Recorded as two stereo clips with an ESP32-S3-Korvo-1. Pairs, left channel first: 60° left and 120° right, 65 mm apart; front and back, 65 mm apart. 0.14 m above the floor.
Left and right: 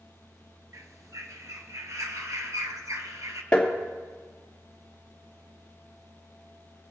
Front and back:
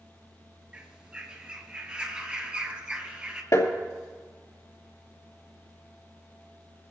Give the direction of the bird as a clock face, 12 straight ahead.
4 o'clock.